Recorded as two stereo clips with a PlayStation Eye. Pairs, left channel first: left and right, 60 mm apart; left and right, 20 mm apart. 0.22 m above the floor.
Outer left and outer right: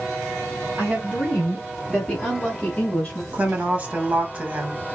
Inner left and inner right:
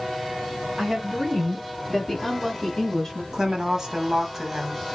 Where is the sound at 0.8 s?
20° right (ahead or behind), 2.5 m; by 3.2 s 15° left (ahead or behind), 1.8 m.